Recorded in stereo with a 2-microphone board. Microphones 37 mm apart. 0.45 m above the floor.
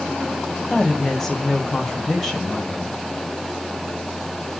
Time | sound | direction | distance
0.7 | a woman speaking | 10° left (ahead or behind) | 2 m